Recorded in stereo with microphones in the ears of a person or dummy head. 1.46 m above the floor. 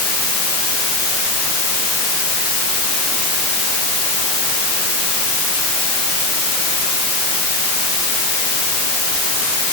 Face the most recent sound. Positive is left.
No sound to turn to.